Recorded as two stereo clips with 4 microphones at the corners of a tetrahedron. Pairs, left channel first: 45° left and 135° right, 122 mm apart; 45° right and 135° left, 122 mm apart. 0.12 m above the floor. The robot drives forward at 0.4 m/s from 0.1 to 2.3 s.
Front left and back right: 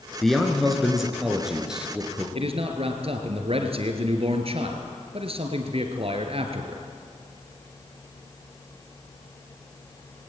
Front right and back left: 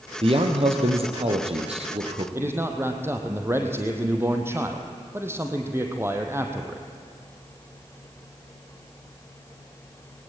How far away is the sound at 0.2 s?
About 2.5 m.